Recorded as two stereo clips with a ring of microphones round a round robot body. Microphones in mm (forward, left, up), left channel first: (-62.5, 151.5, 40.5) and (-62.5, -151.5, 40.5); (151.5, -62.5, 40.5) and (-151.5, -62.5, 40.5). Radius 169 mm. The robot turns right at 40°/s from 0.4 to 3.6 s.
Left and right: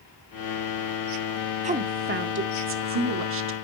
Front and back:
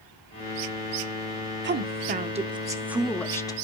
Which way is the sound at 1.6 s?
145° right.